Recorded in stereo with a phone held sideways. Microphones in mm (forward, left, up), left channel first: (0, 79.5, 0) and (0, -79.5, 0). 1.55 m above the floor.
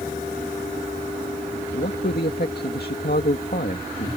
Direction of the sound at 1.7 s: 85° left.